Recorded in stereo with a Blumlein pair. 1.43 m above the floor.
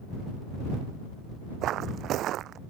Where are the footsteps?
30° right.